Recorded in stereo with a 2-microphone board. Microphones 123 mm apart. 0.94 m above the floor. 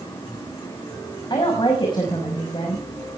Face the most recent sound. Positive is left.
turn(degrees=40)  # may be behind; listen again after turning